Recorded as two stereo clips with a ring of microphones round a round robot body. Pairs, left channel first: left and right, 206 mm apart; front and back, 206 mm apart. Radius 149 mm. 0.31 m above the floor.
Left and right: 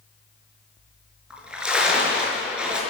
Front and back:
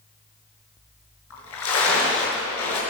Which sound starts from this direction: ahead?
A splash, at 1.3 s.